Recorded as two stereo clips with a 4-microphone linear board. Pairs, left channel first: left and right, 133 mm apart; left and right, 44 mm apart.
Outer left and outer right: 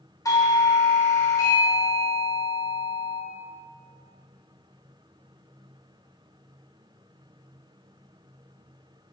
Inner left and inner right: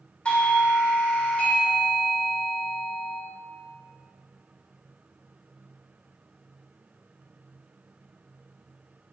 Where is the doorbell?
25° left (ahead or behind), 1.4 m.